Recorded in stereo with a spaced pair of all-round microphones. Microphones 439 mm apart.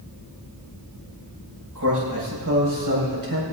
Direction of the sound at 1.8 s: 45° right (ahead or behind).